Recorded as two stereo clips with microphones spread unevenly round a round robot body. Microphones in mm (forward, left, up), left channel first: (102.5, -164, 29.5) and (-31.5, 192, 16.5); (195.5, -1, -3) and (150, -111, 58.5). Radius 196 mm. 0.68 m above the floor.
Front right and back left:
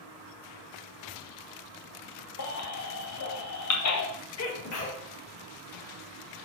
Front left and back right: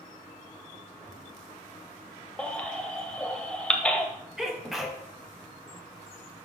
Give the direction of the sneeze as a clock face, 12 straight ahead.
1 o'clock.